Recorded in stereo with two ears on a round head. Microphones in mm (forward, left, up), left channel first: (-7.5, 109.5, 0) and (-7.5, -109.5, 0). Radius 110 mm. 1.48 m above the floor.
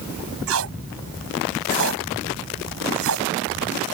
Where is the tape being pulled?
60° right (ahead or behind).